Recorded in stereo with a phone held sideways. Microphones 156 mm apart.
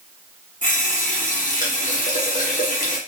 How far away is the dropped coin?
No dropped coin in this recording.